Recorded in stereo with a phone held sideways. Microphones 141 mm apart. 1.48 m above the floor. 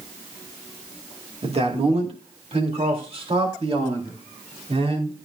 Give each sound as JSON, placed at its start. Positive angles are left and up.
{"t": 1.4, "sound": "a man speaking", "side_deg": -45, "distance_m": 2.5}